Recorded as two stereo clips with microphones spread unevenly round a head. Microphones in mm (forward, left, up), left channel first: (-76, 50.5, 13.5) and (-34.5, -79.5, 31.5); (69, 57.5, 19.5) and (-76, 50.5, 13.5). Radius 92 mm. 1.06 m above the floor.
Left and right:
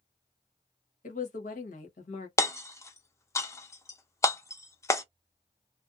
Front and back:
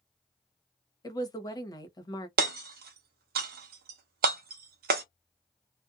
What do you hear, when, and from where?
1.0 s a woman speaking: 70° left, 1.1 m
2.4 s hammering: straight behind, 0.7 m